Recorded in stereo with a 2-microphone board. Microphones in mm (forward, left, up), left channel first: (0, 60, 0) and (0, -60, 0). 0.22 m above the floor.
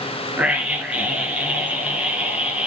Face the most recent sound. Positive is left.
turn(degrees=-10)  # may be behind; listen again after turning